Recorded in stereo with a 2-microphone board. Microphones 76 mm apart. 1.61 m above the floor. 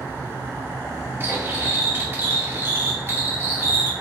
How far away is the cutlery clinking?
About 2 m.